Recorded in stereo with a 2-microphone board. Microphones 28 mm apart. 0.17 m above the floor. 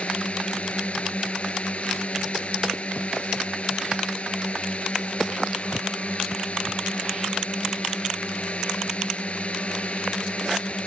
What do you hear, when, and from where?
0.0 s a drone: 50° left (ahead or behind)